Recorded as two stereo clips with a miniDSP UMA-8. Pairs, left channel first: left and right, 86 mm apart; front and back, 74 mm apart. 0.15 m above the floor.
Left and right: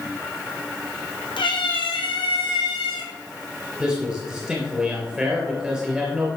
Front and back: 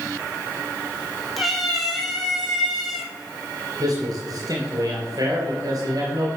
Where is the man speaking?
170° right, 3 m.